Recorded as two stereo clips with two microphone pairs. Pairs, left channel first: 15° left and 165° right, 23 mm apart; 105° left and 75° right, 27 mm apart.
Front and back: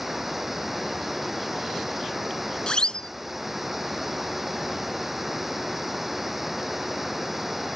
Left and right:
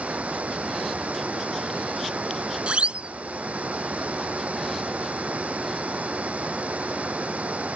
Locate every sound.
0.0 s running water: 85° right
2.7 s a siren: 40° right